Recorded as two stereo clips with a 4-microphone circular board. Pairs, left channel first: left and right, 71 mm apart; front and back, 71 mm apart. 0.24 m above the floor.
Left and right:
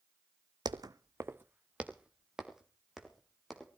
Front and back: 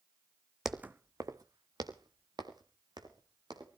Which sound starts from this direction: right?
Footsteps, at 0.7 s.